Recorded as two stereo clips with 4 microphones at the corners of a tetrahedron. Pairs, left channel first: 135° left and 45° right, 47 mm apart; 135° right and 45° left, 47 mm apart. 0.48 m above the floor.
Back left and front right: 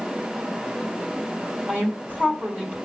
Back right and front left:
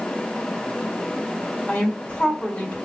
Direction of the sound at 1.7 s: 85° right.